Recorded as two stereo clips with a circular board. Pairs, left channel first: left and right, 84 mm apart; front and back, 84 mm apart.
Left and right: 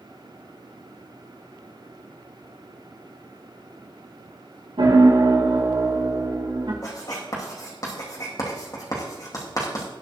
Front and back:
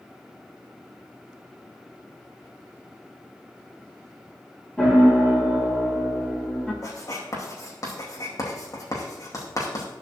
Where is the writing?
45° left, 4 m.